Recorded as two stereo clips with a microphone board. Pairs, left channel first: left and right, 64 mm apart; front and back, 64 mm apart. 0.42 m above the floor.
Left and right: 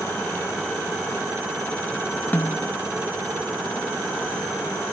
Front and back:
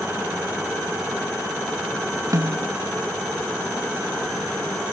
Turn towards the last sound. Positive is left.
turn(degrees=150)